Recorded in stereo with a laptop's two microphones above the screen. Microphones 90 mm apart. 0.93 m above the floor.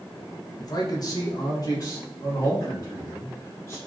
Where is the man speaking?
45° left (ahead or behind), 0.6 m; by 3.8 s 35° left (ahead or behind), 2 m.